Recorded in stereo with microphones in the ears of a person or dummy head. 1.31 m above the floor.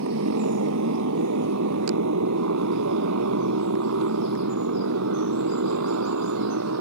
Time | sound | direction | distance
0.0 | a motorcycle | 75° right (ahead or behind) | ?